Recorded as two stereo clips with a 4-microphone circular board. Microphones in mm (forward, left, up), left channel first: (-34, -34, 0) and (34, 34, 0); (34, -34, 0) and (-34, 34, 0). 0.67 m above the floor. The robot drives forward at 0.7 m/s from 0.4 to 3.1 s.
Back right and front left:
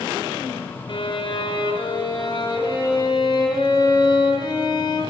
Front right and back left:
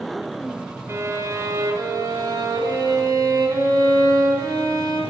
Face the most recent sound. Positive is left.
turn(degrees=-175)